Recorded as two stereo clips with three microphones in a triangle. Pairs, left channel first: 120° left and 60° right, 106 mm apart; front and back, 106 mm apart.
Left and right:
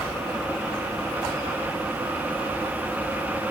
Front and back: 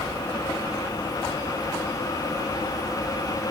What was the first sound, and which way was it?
Only background noise.